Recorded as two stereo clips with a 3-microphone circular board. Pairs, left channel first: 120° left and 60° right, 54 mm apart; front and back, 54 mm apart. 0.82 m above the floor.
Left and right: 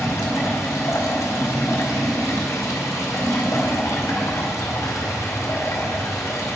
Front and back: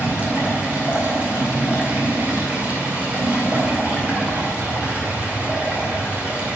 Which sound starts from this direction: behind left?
Running water, at 0.0 s.